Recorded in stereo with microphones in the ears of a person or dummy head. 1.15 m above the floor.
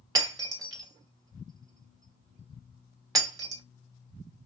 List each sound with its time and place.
0.1 s breaking glass: 25° right (ahead or behind), 2.5 m